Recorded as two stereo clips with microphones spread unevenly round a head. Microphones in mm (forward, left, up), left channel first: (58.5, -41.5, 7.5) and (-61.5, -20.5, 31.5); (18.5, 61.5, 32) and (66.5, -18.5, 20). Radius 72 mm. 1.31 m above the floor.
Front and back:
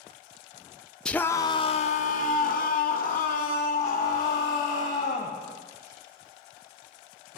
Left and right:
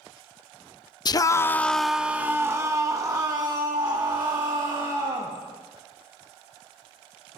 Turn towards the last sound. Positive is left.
turn(degrees=-25)